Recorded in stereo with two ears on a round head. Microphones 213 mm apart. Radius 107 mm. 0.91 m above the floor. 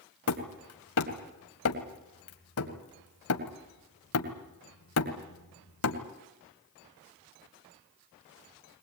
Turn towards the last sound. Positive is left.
turn(degrees=65)  # may be behind; listen again after turning